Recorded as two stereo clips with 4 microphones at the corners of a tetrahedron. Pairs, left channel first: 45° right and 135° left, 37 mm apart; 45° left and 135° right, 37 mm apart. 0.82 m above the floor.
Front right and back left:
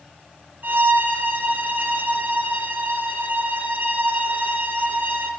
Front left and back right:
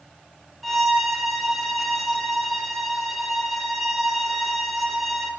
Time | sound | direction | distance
0.6 | a violin | 140° left | 1.7 m